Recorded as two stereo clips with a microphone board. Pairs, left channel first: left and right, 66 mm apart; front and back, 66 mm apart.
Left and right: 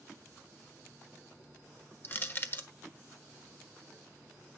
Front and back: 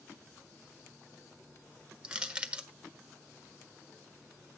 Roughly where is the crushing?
Behind left.